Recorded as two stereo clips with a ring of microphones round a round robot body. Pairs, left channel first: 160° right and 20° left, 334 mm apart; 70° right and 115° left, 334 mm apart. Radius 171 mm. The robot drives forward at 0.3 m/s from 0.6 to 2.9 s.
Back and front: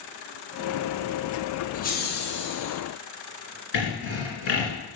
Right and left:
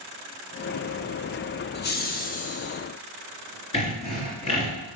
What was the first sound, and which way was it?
Laughter, 105° right.